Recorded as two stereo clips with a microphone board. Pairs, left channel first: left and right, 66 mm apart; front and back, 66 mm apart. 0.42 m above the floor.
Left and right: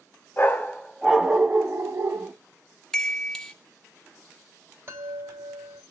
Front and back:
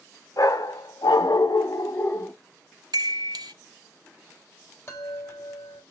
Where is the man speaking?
I don't hear a man speaking.